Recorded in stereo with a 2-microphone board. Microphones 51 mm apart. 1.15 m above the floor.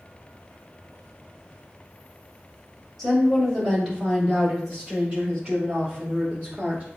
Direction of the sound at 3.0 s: 5° right (ahead or behind).